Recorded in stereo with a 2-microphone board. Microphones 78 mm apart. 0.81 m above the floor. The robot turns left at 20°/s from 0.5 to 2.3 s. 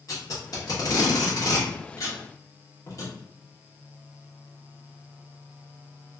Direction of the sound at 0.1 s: 50° left (ahead or behind).